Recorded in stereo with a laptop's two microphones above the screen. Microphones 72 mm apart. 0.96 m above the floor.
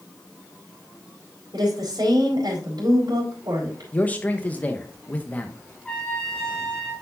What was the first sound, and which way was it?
A woman speaking, 80° right.